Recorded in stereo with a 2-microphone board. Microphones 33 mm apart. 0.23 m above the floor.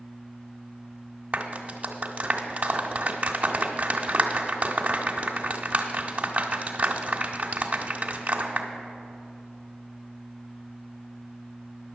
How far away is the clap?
About 1.2 m.